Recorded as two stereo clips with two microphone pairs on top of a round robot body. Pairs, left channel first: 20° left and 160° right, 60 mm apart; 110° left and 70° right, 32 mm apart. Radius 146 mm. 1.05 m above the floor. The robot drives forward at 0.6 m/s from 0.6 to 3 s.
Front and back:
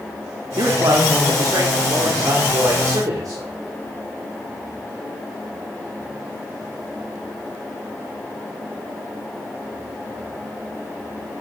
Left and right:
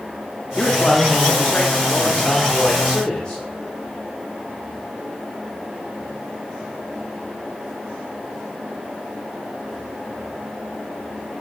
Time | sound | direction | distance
0.6 | a man speaking | 175° right | 2.5 m